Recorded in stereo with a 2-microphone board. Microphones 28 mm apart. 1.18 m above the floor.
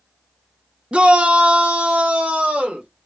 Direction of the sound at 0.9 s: 45° right (ahead or behind).